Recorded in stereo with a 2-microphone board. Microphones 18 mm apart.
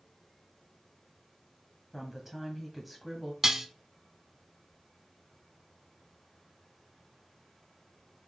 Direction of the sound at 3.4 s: 25° right (ahead or behind).